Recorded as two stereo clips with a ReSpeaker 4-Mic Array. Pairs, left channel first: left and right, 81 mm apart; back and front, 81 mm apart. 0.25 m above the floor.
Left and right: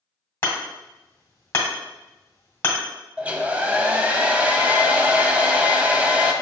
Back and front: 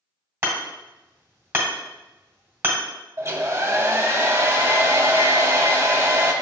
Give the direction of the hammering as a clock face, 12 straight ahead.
11 o'clock.